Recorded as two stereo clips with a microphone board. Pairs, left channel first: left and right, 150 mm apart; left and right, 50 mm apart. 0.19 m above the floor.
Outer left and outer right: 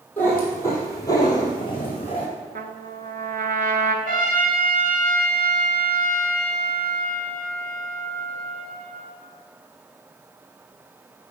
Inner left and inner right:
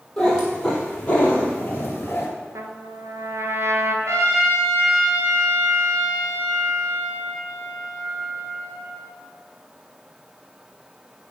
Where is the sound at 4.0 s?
70° right (ahead or behind), 2 m.